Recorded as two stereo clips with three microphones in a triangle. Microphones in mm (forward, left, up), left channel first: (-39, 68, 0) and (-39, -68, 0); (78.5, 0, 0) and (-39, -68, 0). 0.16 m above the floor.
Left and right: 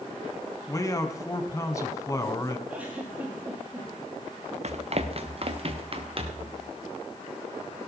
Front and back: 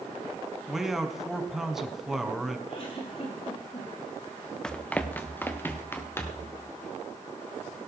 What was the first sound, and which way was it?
A man speaking, 125° left.